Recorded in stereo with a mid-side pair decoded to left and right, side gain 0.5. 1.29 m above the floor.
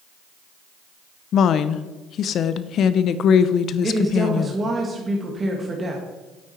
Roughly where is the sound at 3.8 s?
Ahead right.